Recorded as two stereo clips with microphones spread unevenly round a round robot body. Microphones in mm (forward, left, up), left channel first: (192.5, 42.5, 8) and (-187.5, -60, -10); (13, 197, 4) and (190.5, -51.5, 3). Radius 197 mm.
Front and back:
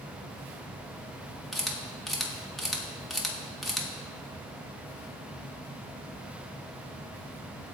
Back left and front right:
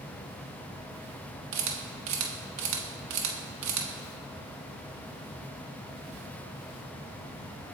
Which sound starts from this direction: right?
A camera shutter, at 1.5 s.